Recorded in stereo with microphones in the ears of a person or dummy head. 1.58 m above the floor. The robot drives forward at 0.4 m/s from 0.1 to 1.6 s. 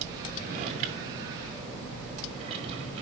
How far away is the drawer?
About 0.9 m.